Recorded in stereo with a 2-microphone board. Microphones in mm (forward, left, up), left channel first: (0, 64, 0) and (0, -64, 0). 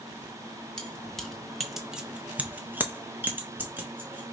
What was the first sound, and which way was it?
Keys jangling, 5° left (ahead or behind).